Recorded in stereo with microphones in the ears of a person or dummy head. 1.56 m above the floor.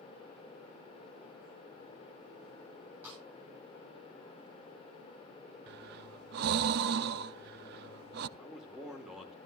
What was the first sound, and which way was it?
A snare drum, 20° right (ahead or behind).